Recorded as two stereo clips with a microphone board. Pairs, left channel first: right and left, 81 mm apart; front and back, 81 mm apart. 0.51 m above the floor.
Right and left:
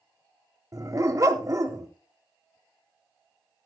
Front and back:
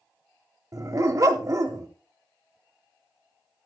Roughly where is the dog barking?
Behind left.